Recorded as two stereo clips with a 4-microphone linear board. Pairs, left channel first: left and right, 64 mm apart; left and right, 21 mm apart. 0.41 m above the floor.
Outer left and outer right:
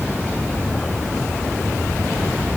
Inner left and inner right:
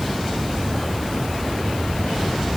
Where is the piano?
No piano in this recording.